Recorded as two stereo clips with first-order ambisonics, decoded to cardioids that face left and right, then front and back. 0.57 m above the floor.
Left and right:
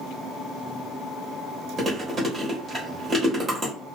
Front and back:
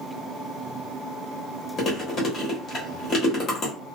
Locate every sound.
1.8 s chewing: 30° right, 1.1 m